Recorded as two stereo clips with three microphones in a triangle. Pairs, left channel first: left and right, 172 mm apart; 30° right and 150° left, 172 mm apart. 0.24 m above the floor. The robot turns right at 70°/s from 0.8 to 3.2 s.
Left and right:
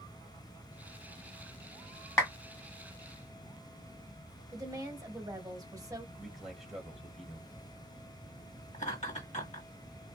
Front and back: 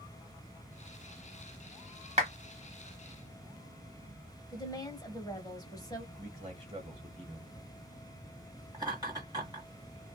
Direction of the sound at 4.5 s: 60° right.